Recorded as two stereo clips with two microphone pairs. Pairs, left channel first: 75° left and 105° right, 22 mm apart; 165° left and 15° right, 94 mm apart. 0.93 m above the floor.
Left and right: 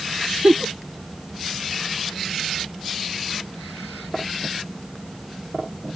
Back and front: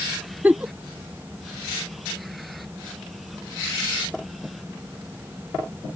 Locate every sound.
0.4 s a giggle: 90° right